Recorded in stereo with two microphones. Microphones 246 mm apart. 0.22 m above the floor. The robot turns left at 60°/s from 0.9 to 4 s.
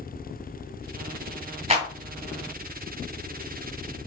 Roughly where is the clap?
Right.